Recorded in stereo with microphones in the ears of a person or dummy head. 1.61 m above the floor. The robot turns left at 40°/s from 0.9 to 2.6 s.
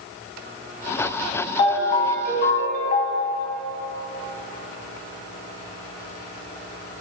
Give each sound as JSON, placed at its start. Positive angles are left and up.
{"t": 1.6, "sound": "a ringtone", "azimuth_deg": 145, "distance_m": 0.9}